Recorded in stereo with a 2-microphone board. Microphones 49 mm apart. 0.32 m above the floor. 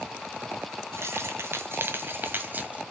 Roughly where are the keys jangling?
Right.